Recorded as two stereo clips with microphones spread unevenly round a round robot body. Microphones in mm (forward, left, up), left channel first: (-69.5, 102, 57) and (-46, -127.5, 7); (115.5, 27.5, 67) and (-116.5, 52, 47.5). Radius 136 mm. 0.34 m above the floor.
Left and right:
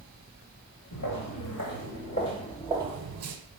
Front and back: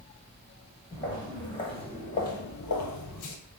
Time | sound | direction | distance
0.9 | footsteps | 70° left | 2 m